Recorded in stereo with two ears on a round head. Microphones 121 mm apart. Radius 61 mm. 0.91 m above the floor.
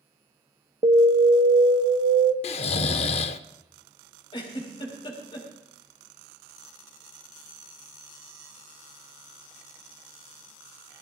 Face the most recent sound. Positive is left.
turn(degrees=35)  # may be behind; listen again after turning